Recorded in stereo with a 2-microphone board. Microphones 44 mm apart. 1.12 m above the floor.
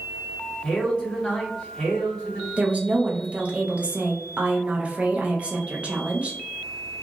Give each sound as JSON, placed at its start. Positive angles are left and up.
{"t": 0.6, "sound": "a man speaking", "side_deg": 25, "distance_m": 1.5}
{"t": 2.6, "sound": "a woman speaking", "side_deg": -30, "distance_m": 0.6}